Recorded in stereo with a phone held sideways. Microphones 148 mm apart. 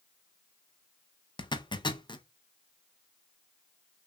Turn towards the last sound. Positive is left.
turn(degrees=30)  # may be behind; listen again after turning